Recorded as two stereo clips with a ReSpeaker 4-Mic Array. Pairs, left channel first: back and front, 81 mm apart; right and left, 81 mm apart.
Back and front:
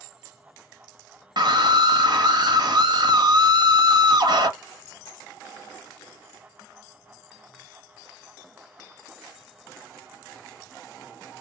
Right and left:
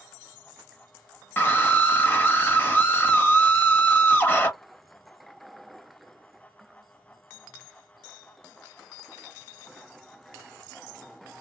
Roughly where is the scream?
Ahead right.